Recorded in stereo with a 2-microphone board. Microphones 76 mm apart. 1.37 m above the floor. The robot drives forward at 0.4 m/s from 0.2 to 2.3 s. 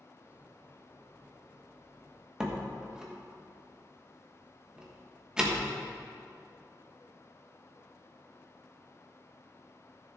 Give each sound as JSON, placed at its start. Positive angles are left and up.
{"t": 2.4, "sound": "a door slam", "side_deg": -10, "distance_m": 1.3}